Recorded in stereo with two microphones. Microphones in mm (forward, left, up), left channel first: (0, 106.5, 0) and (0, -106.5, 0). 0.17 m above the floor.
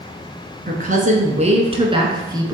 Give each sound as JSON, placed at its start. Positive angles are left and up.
{"t": 0.7, "sound": "a woman speaking", "side_deg": -45, "distance_m": 1.6}